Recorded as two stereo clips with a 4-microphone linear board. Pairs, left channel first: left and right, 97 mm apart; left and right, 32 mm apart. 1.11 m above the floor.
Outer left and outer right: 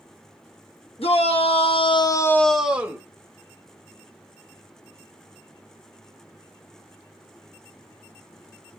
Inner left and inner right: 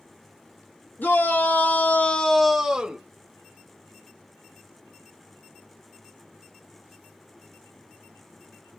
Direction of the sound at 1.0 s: 80° left.